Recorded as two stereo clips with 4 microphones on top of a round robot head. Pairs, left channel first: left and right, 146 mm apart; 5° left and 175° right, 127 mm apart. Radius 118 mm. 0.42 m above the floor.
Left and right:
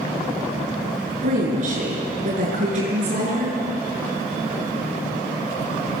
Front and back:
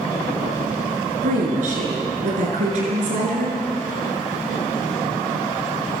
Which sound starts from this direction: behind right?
A woman speaking, at 1.2 s.